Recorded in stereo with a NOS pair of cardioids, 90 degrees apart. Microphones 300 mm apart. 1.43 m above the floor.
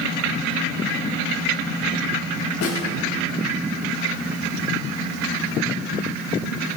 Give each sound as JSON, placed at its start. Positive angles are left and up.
{"t": 2.6, "sound": "a snare drum", "azimuth_deg": 55, "distance_m": 3.0}